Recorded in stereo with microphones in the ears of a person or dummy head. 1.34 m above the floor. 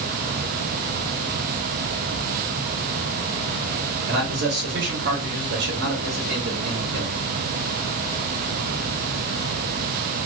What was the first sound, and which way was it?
A man speaking, 50° right (ahead or behind).